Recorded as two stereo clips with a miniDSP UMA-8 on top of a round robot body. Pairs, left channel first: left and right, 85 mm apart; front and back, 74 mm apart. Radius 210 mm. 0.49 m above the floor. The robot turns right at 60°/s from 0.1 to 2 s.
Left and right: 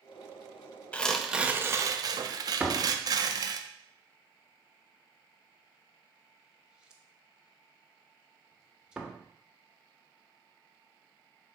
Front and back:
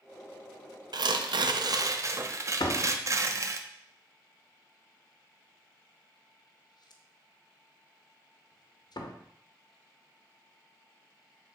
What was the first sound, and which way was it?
Tearing paper, 165° left.